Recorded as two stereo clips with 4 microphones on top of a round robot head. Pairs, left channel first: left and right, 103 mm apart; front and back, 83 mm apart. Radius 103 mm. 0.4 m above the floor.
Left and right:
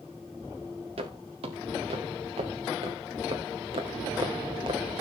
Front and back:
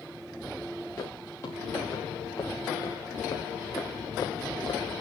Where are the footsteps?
65° right, 3.5 m; by 4.8 s 50° right, 1.8 m.